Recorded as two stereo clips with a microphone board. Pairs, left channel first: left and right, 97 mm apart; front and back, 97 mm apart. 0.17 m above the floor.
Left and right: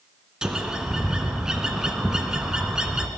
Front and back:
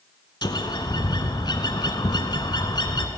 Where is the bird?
10° right, 0.9 m.